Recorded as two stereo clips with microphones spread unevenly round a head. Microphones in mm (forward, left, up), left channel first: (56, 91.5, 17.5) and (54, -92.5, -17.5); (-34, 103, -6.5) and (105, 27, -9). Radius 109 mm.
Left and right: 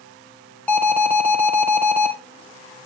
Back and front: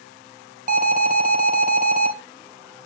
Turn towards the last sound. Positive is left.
turn(degrees=5)